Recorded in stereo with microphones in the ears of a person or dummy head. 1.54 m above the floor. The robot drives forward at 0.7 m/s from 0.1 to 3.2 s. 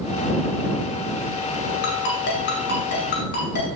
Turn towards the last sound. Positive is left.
turn(degrees=55)  # may be behind; listen again after turning